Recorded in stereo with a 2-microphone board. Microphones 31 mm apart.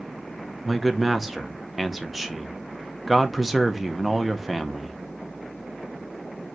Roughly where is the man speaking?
Centre.